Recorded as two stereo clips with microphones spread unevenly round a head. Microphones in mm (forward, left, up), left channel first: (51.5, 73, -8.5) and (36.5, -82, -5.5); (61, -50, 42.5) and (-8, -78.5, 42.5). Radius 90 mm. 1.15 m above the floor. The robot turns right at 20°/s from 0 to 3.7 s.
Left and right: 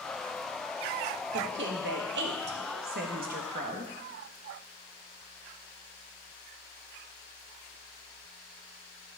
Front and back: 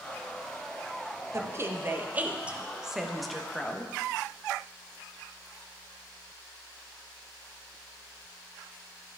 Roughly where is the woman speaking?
Right.